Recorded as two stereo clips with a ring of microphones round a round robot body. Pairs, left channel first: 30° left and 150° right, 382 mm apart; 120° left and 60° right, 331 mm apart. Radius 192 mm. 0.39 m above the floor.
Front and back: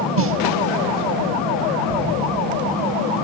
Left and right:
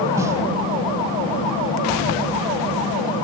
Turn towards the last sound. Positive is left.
turn(degrees=-135)